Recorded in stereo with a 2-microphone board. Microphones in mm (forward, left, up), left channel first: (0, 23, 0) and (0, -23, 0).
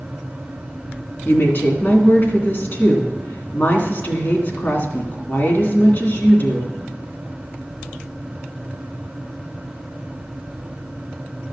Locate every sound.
1.2 s a woman speaking: 50° left (ahead or behind), 2 m